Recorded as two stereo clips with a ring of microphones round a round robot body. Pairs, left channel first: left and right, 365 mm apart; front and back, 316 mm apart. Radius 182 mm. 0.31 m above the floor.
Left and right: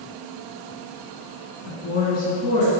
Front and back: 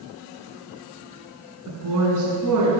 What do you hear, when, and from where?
1.7 s a woman speaking: 145° left, 2.5 m; by 2.7 s 165° left, 3 m